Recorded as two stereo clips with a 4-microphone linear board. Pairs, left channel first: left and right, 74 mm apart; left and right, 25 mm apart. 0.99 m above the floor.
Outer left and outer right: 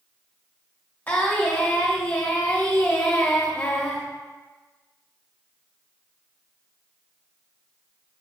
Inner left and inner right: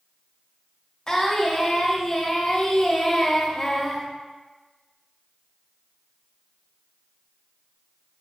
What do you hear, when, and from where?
1.1 s singing: 25° left (ahead or behind), 0.8 m